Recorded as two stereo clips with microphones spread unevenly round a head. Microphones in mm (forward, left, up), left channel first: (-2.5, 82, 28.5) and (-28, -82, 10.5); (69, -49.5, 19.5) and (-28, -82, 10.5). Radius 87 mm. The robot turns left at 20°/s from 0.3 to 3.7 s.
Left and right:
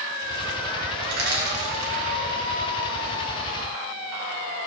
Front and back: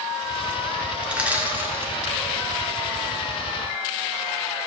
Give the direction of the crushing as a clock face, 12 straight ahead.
3 o'clock.